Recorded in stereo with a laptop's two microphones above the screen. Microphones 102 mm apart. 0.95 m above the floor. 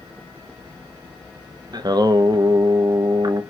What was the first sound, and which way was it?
Singing, 40° right (ahead or behind).